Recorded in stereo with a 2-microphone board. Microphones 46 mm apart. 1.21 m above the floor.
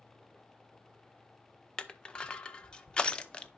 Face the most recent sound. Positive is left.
turn(degrees=20)  # may be behind; listen again after turning